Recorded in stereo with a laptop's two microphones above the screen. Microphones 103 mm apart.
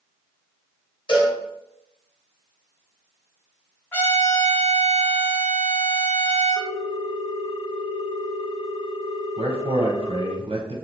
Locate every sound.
1.1 s a cowbell: 50° left (ahead or behind), 1.4 m
3.9 s a trumpet: 20° left (ahead or behind), 1.0 m
6.6 s a ringtone: 55° left (ahead or behind), 0.5 m
9.4 s a man speaking: 70° right (ahead or behind), 0.5 m